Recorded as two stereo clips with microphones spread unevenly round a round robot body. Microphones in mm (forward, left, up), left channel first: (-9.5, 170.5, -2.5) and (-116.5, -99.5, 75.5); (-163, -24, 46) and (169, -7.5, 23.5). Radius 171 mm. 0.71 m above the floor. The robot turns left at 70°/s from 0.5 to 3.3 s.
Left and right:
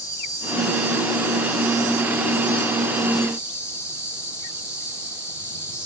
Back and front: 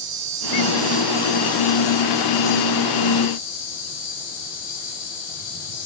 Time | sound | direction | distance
0.0 | an insect | 15° right | 9 m